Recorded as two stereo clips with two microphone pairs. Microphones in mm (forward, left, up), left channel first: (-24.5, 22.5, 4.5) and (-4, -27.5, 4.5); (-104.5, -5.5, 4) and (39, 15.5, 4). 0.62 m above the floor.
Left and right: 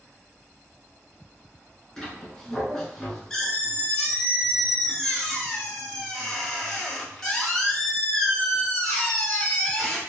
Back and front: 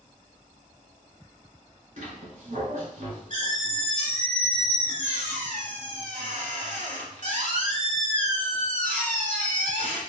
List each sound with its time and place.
2.0 s a squeak: 35° left, 1.3 m